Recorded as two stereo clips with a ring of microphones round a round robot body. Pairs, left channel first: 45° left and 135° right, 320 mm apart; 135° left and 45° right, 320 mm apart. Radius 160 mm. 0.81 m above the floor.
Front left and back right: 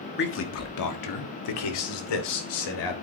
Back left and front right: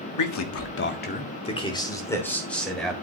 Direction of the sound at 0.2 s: 105° left.